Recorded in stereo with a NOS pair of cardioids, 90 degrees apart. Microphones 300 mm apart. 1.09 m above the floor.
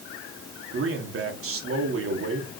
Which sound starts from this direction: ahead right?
A man speaking, at 0.7 s.